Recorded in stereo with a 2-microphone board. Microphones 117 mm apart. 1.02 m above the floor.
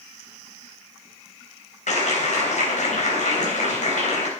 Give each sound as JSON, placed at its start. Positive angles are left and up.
{"t": 1.9, "sound": "a clap", "side_deg": 80, "distance_m": 4.0}